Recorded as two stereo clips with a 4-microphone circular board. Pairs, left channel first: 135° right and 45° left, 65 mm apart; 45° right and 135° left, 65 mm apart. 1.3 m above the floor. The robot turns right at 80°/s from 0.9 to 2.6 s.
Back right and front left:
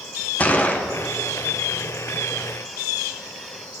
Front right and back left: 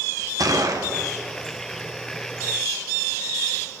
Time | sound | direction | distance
0.4 | a gunshot | 160° left | 0.7 m